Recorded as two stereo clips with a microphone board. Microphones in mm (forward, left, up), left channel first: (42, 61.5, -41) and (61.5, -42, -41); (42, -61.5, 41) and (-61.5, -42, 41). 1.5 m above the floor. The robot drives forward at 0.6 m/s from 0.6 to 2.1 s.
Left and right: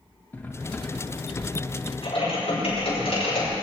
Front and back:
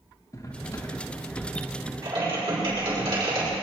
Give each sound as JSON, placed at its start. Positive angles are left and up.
{"t": 0.3, "sound": "cutlery clinking", "azimuth_deg": 30, "distance_m": 1.1}
{"t": 2.0, "sound": "typing on a keyboard", "azimuth_deg": 130, "distance_m": 5.5}